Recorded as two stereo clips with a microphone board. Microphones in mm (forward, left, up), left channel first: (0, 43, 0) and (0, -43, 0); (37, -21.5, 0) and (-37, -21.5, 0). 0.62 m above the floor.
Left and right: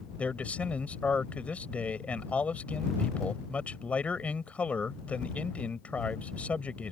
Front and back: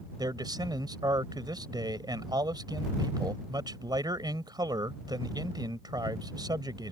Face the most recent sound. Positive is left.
turn(degrees=165)